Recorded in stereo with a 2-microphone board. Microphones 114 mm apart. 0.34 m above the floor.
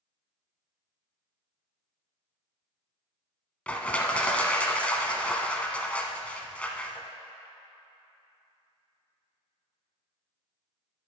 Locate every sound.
3.7 s crushing: 10° left (ahead or behind), 0.6 m